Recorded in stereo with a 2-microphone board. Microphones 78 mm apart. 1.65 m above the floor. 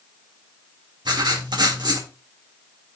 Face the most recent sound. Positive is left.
turn(degrees=-70)  # may be behind; listen again after turning